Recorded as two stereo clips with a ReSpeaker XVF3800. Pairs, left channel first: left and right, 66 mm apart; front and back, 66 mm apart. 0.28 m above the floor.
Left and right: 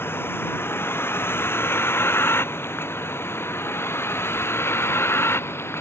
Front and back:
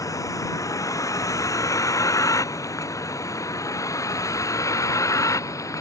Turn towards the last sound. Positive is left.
turn(degrees=40)